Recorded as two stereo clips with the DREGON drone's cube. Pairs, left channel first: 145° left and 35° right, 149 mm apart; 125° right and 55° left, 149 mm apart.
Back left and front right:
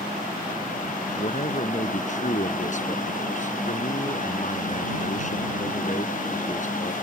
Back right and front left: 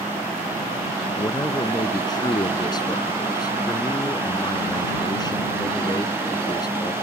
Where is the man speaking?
175° left.